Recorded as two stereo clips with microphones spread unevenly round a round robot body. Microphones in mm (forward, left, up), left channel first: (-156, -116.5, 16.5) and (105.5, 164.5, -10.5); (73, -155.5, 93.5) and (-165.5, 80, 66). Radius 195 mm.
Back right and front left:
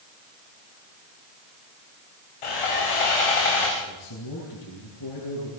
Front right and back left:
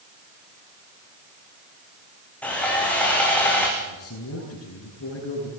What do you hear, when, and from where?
2.4 s sawing: 130° right, 8.5 m
3.8 s a man speaking: 95° right, 9.5 m